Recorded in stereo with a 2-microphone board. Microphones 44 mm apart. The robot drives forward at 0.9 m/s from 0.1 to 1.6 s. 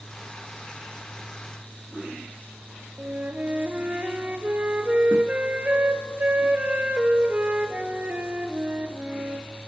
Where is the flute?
35° right (ahead or behind), 1.3 m.